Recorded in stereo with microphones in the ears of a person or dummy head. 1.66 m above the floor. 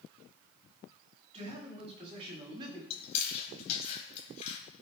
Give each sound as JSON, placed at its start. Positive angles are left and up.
{"t": 1.3, "sound": "a man speaking", "side_deg": -40, "distance_m": 7.5}
{"t": 2.9, "sound": "chewing", "side_deg": 35, "distance_m": 3.5}